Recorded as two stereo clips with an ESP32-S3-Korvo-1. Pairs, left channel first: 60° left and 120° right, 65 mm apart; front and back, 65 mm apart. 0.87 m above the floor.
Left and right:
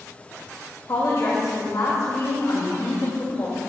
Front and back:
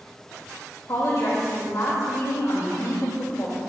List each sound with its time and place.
0.9 s a woman speaking: 30° left, 3 m